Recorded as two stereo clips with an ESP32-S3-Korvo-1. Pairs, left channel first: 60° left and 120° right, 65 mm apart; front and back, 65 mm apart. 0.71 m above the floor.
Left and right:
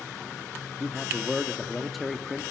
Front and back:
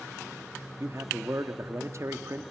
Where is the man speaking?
150° left, 1.0 m.